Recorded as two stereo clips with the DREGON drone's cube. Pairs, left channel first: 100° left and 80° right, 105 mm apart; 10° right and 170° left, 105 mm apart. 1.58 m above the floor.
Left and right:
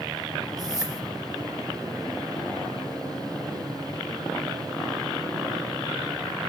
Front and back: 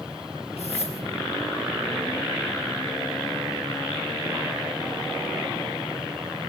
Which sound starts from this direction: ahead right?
A whoosh, at 0.6 s.